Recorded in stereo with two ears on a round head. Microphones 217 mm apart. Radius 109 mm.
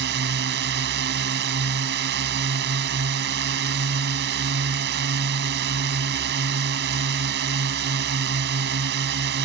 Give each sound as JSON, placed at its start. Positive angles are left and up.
{"t": 0.0, "sound": "a drone", "side_deg": -50}